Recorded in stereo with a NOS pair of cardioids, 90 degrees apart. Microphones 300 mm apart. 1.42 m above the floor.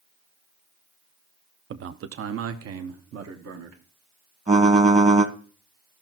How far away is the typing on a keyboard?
About 1.6 m.